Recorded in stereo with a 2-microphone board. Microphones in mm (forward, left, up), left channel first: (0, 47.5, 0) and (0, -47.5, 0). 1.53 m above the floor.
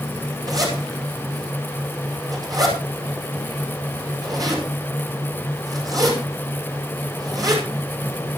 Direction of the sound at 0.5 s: 40° right (ahead or behind).